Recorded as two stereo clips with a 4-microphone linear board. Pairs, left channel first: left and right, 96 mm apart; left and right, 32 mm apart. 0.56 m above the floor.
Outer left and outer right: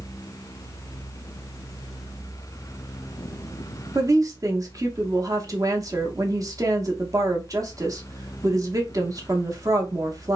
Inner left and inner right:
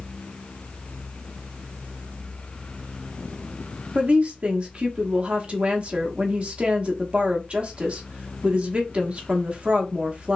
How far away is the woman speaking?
About 0.8 m.